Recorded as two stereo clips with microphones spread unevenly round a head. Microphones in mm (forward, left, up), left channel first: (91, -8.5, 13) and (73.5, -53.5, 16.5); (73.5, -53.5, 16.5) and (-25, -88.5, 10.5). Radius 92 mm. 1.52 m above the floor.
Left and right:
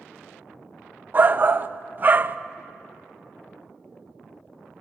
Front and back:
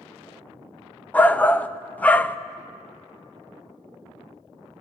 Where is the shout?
55° right, 0.9 m.